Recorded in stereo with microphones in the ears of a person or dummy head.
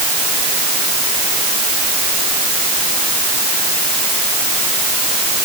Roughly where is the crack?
No crack in this recording.